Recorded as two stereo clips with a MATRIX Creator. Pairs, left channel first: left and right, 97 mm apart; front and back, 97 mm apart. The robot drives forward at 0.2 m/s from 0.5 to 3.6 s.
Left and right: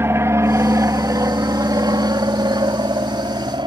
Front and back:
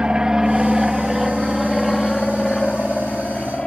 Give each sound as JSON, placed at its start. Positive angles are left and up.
{"t": 0.0, "sound": "an aircraft", "azimuth_deg": -110}